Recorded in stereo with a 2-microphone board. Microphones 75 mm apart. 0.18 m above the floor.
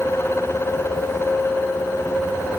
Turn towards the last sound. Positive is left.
No sound to turn to.